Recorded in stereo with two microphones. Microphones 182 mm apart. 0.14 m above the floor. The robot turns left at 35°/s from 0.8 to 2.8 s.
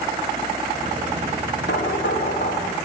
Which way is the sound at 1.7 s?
90° left.